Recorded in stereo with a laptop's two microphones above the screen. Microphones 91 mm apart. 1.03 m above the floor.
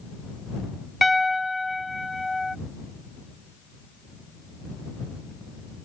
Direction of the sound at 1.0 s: Centre (ahead or behind).